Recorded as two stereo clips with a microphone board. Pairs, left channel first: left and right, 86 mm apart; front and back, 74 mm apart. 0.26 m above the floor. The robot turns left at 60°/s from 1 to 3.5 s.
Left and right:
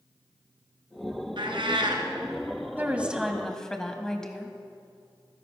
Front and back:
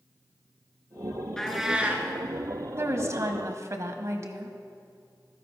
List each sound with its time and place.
1.4 s a cat meowing: 80° right, 1.6 m; by 2.1 s 120° right, 1.6 m
2.8 s a woman speaking: 145° right, 1.3 m; by 4.6 s 170° left, 1.3 m